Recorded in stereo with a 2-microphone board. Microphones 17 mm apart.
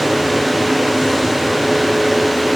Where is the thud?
No thud in this recording.